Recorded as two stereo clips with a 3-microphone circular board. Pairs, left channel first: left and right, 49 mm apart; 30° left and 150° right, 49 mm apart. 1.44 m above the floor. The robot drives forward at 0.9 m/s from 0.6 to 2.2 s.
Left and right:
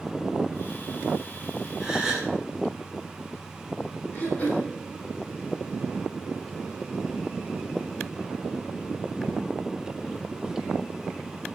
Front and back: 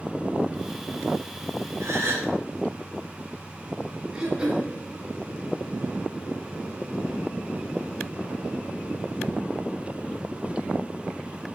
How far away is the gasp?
About 2.5 m.